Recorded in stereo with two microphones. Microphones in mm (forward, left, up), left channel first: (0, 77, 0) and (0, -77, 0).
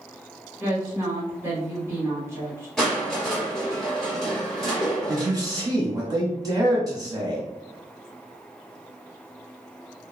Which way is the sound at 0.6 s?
15° right (ahead or behind).